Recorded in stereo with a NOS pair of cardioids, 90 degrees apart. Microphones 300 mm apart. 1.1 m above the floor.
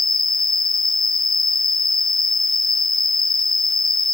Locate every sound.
0.0 s an insect: 15° left